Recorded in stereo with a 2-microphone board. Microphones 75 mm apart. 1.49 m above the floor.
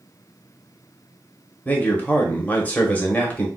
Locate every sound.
1.6 s a man speaking: 20° left (ahead or behind), 0.9 m